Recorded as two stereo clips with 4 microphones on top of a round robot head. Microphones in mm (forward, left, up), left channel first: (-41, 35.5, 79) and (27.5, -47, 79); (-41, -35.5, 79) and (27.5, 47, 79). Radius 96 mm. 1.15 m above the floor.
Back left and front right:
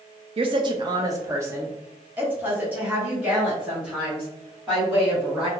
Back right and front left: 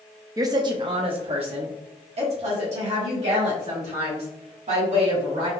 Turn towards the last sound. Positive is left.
turn(degrees=35)